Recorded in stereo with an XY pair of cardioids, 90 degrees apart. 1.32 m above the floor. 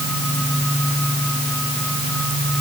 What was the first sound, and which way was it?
Only background noise.